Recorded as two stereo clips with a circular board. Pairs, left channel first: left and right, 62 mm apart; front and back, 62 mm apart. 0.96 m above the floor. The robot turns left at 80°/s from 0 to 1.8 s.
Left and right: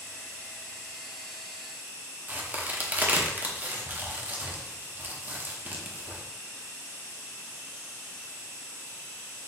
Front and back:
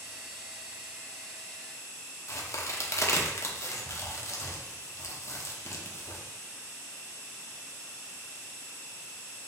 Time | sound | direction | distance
2.3 | a crack | 35° right | 0.6 m